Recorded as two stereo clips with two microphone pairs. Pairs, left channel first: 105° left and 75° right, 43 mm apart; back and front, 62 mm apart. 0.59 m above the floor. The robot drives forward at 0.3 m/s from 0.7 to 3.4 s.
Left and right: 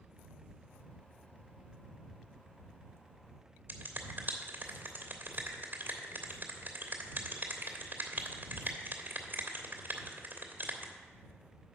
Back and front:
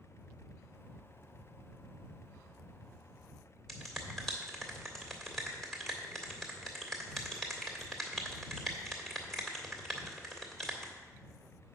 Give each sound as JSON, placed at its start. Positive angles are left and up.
{"t": 3.7, "sound": "a finger snap", "azimuth_deg": -100, "distance_m": 1.9}